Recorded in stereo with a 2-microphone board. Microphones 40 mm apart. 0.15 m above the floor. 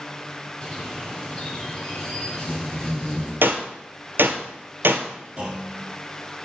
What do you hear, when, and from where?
0.6 s a bird: 20° left (ahead or behind), 3 m
3.4 s a gunshot: 75° right (ahead or behind), 0.9 m
5.4 s a clunk: 30° right (ahead or behind), 2.5 m